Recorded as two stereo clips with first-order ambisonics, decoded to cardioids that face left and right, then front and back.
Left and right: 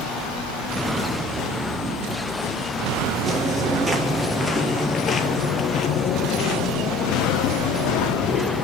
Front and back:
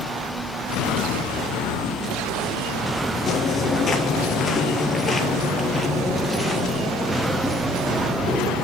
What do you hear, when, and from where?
3.3 s footsteps: 45° right, 1.6 m; by 8.6 s 100° left, 2.5 m